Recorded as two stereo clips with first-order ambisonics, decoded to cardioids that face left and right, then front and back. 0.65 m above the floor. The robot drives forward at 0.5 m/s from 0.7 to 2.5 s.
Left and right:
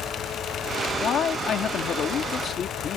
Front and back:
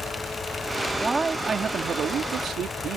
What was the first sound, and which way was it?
A man speaking, 105° left.